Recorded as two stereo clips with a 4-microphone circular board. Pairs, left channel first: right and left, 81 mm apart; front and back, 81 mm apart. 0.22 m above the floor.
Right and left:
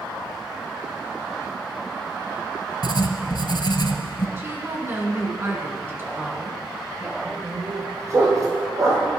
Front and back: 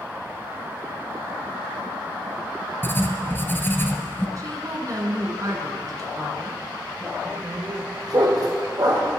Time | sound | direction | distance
2.8 | writing | 65° right | 1.1 m
4.4 | a woman speaking | 145° left | 2.5 m
7.2 | a dog barking | 140° left | 3 m